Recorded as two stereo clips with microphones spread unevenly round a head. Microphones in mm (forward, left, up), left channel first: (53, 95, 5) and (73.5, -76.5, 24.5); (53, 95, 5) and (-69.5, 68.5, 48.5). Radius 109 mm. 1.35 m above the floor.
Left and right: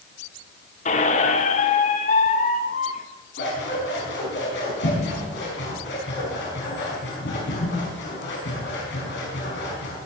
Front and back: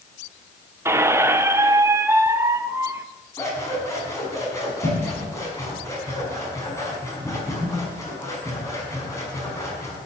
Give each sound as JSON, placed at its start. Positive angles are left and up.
{"t": 0.8, "sound": "a squeak", "azimuth_deg": 150, "distance_m": 0.7}
{"t": 3.4, "sound": "scissors", "azimuth_deg": 80, "distance_m": 5.5}